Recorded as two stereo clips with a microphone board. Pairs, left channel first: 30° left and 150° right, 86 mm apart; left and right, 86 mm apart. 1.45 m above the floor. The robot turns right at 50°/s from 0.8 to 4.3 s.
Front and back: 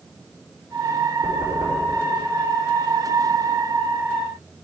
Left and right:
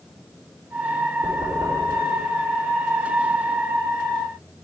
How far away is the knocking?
About 3.5 m.